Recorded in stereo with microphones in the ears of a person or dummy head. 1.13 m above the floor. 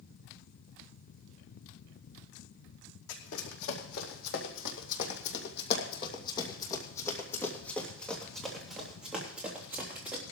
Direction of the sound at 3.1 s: 70° left (ahead or behind).